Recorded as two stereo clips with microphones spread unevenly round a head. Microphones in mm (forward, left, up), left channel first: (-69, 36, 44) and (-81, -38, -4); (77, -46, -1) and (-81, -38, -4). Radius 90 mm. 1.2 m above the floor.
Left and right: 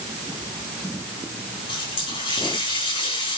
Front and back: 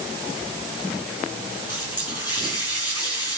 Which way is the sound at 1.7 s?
65° left.